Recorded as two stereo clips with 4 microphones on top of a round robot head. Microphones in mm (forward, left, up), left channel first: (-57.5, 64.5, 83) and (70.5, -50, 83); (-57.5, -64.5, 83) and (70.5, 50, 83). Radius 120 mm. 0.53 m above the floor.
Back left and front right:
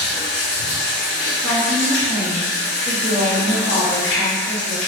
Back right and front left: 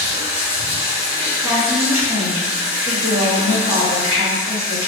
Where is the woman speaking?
140° left, 1.0 m.